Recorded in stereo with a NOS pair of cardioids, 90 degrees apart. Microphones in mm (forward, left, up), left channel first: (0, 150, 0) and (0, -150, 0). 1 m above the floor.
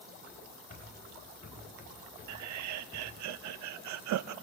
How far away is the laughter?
About 0.8 m.